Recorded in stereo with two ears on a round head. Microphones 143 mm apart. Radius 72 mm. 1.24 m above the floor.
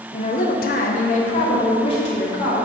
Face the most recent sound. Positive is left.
turn(degrees=35)  # may be behind; listen again after turning